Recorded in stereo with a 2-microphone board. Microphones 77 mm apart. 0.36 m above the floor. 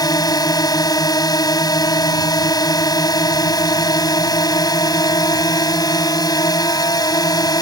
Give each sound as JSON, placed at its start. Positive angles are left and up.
{"t": 0.0, "sound": "a drone", "side_deg": 60}